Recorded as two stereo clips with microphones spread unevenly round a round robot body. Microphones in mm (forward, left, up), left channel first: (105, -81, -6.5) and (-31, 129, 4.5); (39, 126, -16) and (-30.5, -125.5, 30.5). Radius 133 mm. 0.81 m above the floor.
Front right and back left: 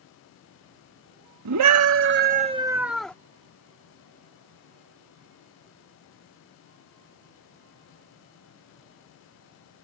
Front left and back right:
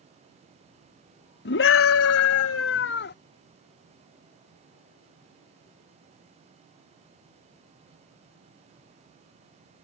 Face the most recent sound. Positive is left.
turn(degrees=30)